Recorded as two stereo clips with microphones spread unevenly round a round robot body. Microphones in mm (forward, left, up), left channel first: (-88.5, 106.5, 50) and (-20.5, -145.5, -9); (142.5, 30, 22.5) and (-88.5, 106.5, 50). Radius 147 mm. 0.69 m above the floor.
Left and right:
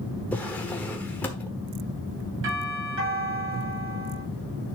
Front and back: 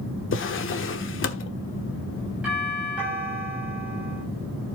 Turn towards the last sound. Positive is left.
turn(degrees=-110)